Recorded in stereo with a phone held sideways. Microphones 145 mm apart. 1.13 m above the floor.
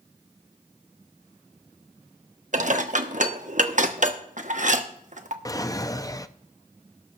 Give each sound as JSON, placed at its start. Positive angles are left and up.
{"t": 2.5, "sound": "dishes clattering", "side_deg": -60, "distance_m": 1.0}
{"t": 5.5, "sound": "a drawer", "side_deg": 25, "distance_m": 0.6}